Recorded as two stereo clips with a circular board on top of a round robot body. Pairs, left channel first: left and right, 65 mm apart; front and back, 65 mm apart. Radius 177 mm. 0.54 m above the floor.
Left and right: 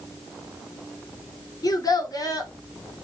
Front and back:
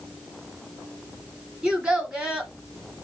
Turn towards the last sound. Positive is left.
turn(degrees=105)